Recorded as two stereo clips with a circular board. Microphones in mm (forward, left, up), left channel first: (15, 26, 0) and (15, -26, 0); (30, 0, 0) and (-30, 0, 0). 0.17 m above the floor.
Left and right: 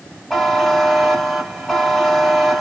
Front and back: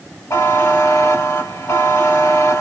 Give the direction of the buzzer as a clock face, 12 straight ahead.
12 o'clock.